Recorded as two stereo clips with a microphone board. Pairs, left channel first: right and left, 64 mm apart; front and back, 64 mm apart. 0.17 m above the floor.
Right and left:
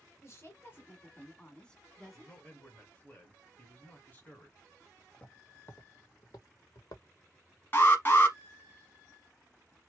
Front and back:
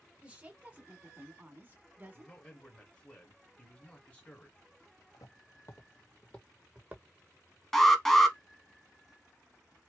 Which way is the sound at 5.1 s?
15° right.